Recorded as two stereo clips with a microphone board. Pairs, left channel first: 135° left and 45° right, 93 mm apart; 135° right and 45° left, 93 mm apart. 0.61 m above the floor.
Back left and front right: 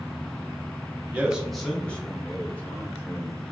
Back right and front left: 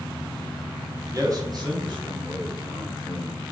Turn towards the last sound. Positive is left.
turn(degrees=75)